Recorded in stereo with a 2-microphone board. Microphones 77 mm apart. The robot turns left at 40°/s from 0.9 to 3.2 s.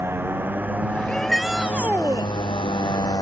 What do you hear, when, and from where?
0.0 s a motorcycle: 30° right (ahead or behind); by 3.2 s 50° left (ahead or behind)
1.1 s a shout: 10° left; by 2.3 s 35° right